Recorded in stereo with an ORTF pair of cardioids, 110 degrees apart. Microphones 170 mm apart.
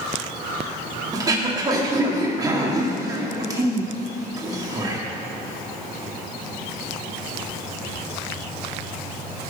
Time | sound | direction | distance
1.1 | throat clearing | 20° right | 1.8 m